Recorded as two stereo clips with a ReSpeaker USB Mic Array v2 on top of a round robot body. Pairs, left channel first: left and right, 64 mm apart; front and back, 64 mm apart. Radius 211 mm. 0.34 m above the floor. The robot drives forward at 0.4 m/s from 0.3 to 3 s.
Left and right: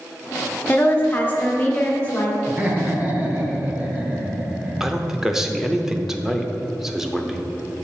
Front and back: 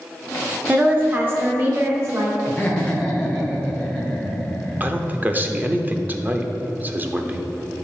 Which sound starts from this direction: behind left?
A woman speaking, at 0.7 s.